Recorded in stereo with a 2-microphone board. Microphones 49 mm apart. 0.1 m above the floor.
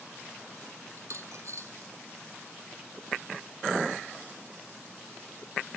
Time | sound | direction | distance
1.0 | a dropped coin | 70° right (ahead or behind) | 1.2 m